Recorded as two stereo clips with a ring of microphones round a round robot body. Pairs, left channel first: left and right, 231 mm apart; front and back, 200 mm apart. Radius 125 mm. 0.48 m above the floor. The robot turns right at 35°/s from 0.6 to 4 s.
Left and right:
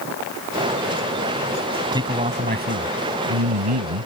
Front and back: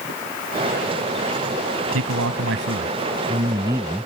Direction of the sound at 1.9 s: 165° right.